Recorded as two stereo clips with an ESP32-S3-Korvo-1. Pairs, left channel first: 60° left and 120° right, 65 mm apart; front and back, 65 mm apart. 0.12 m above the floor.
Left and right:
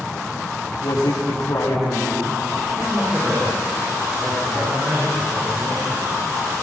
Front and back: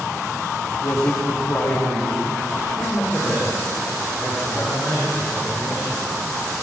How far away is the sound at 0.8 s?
About 8.5 m.